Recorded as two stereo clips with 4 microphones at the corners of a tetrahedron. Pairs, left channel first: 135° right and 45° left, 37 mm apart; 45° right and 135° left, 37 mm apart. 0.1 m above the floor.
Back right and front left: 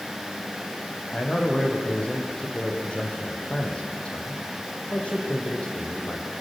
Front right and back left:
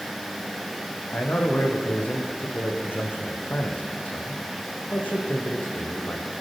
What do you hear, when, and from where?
1.1 s a man speaking: 80° right, 4.5 m